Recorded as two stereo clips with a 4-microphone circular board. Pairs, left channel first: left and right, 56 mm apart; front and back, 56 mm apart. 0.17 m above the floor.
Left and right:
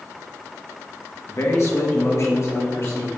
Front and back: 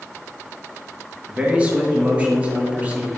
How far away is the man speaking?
About 2.5 m.